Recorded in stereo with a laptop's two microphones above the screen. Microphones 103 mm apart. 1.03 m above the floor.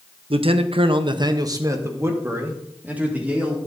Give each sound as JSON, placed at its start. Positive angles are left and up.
{"t": 0.3, "sound": "a man speaking", "side_deg": -60, "distance_m": 0.7}